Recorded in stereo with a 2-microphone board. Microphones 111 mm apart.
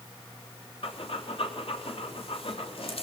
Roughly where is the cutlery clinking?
No cutlery clinking in this recording.